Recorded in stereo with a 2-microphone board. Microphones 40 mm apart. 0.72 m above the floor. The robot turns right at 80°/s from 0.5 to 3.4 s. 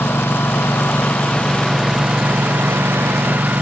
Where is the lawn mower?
80° left; by 3.6 s 50° right.